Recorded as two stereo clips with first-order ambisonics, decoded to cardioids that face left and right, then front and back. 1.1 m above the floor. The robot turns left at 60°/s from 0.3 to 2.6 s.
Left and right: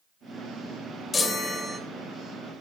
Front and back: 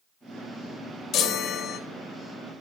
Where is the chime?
30° left, 0.7 m; by 1.8 s 10° right, 0.7 m.